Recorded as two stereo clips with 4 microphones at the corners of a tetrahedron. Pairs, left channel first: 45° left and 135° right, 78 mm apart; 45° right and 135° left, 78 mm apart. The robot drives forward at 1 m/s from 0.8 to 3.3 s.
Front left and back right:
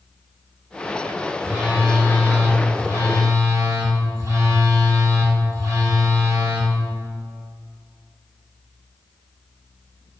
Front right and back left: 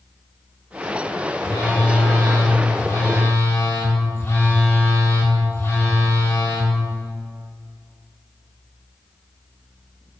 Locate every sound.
1.4 s a phone buzzing: 55° right, 3 m; by 6.7 s 100° right, 2.5 m